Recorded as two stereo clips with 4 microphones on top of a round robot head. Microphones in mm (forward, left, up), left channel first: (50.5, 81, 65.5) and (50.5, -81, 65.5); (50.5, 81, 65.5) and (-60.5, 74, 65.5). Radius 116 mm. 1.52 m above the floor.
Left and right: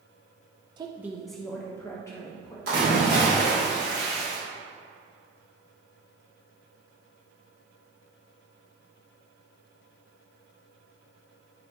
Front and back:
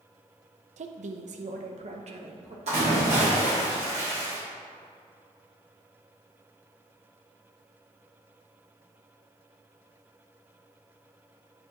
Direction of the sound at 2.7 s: 125° right.